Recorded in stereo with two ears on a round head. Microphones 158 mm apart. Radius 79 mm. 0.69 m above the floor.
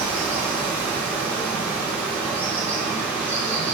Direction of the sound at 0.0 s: 10° right (ahead or behind).